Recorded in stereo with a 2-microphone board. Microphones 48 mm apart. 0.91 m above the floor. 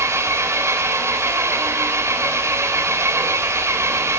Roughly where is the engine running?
Right.